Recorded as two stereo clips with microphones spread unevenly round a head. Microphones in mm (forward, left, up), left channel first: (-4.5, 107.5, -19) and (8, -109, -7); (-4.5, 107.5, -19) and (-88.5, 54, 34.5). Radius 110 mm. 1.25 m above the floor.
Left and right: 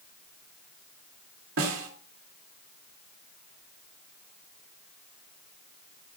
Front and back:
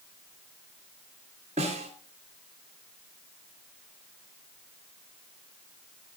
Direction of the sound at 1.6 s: 115° right.